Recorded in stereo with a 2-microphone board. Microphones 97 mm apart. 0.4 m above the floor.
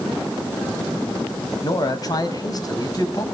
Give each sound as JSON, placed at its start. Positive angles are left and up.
{"t": 1.6, "sound": "a man speaking", "side_deg": 40, "distance_m": 3.0}